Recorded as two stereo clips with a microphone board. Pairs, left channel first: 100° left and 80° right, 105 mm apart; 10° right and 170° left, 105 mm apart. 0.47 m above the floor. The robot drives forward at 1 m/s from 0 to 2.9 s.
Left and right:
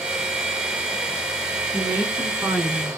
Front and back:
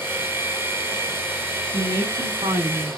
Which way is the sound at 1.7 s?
145° right.